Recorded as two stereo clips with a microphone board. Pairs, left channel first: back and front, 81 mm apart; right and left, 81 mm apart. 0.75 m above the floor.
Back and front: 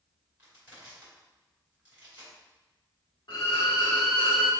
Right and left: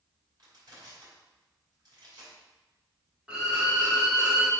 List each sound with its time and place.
0.4 s crushing: 60° left, 2 m
3.3 s a violin: 165° left, 1.2 m